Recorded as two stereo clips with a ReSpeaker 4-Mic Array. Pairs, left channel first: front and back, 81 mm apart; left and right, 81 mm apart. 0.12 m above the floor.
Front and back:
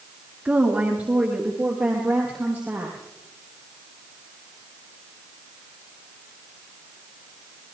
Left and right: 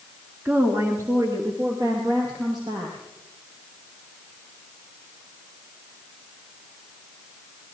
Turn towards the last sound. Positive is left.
turn(degrees=-105)